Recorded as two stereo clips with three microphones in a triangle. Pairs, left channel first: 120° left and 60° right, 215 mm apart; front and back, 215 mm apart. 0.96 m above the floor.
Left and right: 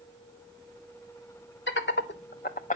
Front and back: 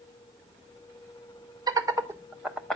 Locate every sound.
1.7 s laughter: 110° left, 1.3 m; by 2.8 s 85° left, 0.8 m